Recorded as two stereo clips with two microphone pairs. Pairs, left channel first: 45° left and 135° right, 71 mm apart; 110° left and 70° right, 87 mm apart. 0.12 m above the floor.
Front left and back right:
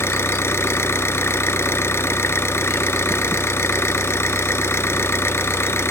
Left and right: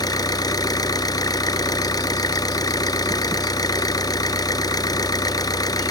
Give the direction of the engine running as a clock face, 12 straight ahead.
9 o'clock.